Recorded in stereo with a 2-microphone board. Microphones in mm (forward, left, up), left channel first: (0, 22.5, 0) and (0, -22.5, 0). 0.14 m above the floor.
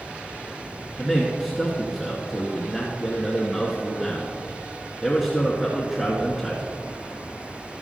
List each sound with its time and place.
1.0 s a man speaking: centre (ahead or behind), 1.6 m